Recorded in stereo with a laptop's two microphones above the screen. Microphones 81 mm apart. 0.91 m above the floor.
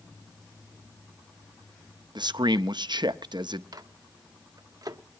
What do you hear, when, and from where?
2.1 s a man speaking: 65° right (ahead or behind), 0.6 m
3.7 s a microwave: 50° right (ahead or behind), 0.8 m